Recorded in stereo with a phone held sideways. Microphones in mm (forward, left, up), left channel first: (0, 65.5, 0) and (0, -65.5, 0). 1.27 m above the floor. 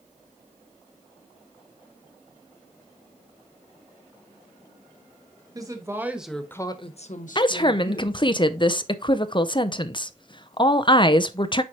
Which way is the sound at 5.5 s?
25° right (ahead or behind).